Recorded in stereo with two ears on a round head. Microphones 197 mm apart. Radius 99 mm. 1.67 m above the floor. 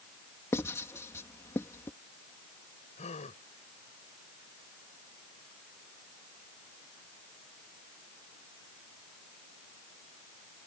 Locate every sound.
0.5 s writing: 15° left (ahead or behind)
3.0 s a gasp: 30° left (ahead or behind)